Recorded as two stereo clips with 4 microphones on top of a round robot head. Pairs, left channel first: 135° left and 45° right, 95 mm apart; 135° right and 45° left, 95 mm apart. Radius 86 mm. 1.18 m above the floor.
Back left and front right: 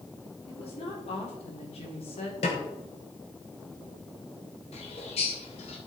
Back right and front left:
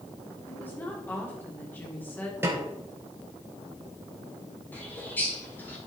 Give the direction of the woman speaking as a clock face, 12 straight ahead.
7 o'clock.